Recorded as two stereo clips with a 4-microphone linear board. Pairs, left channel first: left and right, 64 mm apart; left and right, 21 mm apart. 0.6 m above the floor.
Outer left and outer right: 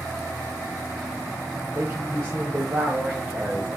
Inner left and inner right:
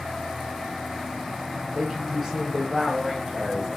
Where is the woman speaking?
40° right (ahead or behind), 3 m; by 3.8 s 25° right (ahead or behind), 3.5 m.